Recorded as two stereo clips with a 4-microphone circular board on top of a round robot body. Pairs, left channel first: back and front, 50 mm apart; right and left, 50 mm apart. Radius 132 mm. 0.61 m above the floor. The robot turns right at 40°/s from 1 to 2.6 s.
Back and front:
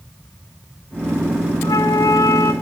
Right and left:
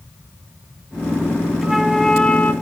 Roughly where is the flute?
Behind.